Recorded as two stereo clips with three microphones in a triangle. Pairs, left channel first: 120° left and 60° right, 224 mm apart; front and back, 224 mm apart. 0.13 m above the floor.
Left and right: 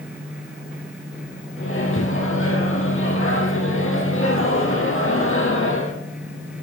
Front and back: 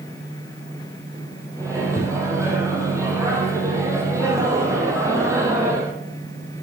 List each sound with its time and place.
1.6 s a microwave: 105° left, 3 m